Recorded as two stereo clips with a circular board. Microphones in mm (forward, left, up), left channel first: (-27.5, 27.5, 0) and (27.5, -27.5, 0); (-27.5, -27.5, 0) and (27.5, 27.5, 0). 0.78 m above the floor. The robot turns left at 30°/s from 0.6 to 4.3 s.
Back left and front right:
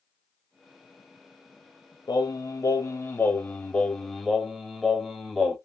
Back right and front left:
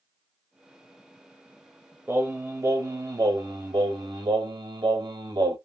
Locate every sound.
2.1 s singing: 110° left, 0.9 m; by 5.6 s 45° left, 0.9 m